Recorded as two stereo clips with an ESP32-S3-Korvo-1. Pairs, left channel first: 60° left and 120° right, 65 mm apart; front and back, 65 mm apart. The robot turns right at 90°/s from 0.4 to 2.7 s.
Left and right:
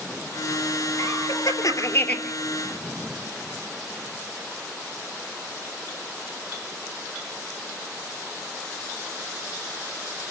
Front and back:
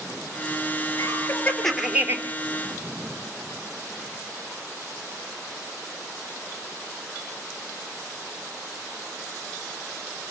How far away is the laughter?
About 3.5 m.